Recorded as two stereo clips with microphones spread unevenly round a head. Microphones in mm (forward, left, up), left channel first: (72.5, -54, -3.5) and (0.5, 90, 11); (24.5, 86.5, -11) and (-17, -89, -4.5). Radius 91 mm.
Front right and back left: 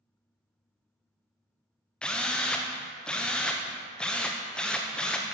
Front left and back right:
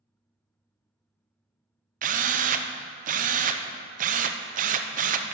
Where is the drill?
150° right, 0.8 m.